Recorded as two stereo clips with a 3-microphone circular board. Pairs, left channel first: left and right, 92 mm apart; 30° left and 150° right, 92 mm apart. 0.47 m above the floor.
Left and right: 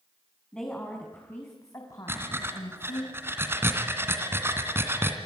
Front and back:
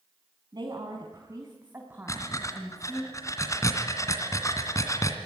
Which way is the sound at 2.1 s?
25° right.